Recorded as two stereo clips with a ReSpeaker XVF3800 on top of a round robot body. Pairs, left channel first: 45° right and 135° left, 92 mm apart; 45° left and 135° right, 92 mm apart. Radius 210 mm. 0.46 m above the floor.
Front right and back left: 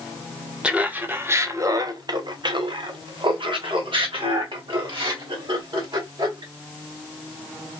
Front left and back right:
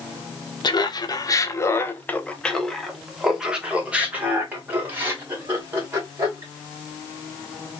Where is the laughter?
60° left, 1.3 m; by 6.5 s 165° left, 3 m.